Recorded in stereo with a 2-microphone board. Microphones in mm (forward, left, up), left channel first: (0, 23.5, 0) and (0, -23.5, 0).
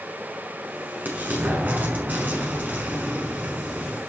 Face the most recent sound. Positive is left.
turn(degrees=-40)  # may be behind; listen again after turning